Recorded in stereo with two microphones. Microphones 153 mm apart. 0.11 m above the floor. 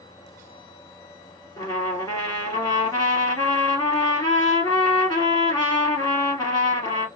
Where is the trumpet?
25° left (ahead or behind), 2 m.